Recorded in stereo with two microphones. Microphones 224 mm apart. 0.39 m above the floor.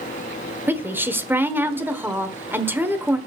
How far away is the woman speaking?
About 1.3 m.